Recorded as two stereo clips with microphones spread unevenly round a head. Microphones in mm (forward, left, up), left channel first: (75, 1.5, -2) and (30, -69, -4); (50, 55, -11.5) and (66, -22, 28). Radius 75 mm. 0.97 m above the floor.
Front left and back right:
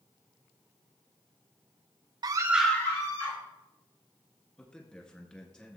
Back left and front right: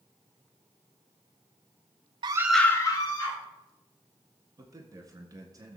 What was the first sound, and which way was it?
A scream, 135° right.